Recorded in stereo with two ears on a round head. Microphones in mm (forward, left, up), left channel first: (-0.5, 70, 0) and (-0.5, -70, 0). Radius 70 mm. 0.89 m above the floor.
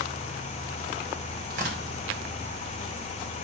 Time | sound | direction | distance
1.5 | tearing paper | 60° right (ahead or behind) | 4 m